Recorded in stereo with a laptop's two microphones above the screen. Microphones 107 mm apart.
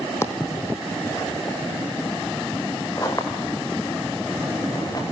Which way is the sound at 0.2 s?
25° left (ahead or behind).